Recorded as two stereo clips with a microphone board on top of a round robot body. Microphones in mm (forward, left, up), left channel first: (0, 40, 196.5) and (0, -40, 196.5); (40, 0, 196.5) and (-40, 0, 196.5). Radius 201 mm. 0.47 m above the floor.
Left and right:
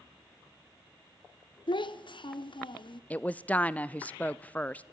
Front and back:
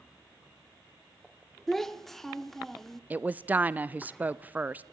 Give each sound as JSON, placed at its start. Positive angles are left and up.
{"t": 1.7, "sound": "a child speaking", "azimuth_deg": 85, "distance_m": 1.1}
{"t": 3.1, "sound": "a woman speaking", "azimuth_deg": 135, "distance_m": 0.7}